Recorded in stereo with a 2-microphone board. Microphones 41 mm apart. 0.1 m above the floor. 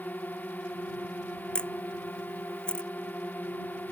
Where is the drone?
45° left (ahead or behind).